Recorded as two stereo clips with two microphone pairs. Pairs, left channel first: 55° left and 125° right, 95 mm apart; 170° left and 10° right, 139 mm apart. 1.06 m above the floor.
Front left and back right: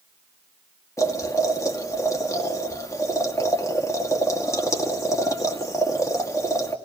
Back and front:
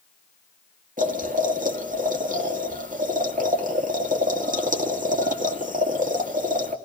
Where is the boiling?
Straight ahead, 2 m.